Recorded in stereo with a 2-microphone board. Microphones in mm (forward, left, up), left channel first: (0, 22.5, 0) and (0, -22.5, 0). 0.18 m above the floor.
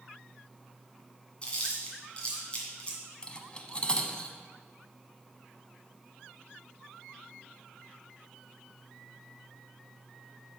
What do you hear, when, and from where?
1.4 s chewing: 25° left (ahead or behind), 2.0 m
3.2 s cutlery clinking: 25° left (ahead or behind), 0.6 m